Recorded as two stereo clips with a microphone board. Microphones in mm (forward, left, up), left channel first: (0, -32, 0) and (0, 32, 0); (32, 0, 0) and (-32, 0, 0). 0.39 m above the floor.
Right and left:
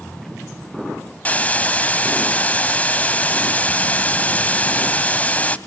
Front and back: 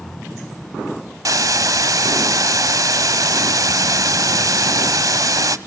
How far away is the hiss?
About 0.9 m.